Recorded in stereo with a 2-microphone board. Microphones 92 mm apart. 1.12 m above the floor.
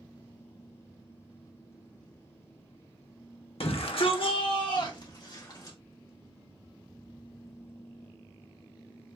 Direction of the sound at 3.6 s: 75° left (ahead or behind).